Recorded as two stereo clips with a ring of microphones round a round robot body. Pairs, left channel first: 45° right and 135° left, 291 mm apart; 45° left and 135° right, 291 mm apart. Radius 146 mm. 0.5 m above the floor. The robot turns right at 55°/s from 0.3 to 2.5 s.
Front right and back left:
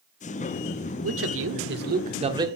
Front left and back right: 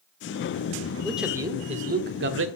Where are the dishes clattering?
I don't hear dishes clattering.